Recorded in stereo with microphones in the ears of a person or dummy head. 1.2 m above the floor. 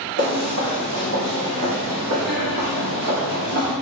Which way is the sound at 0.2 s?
40° right (ahead or behind).